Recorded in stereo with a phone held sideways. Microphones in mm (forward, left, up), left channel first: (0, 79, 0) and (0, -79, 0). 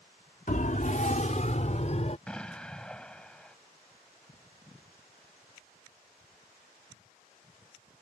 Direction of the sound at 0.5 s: 60° left (ahead or behind).